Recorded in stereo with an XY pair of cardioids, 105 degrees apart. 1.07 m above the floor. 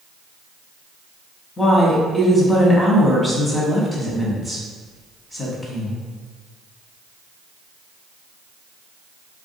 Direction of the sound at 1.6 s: 20° left.